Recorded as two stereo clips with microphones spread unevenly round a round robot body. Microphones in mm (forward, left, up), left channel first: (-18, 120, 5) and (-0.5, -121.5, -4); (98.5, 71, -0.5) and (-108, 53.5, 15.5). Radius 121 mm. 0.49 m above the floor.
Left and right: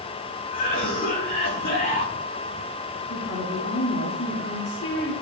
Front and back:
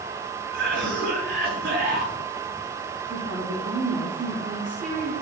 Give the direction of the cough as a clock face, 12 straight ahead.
7 o'clock.